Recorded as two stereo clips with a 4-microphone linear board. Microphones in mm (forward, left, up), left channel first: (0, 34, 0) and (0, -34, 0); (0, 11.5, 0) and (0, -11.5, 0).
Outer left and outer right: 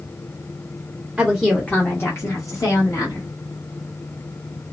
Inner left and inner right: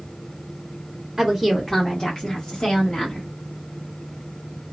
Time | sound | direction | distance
1.2 | a woman speaking | 10° right (ahead or behind) | 0.7 m